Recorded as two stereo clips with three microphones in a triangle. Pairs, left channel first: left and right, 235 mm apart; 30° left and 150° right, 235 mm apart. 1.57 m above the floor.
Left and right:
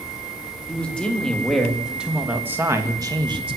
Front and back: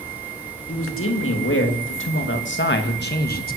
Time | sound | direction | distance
0.7 | a man speaking | 5° left | 3.5 m